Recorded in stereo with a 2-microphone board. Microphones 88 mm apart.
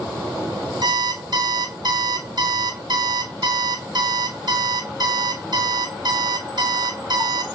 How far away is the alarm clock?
About 1.0 m.